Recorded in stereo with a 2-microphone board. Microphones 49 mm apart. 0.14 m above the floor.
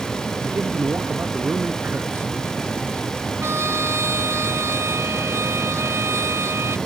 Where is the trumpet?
60° right (ahead or behind).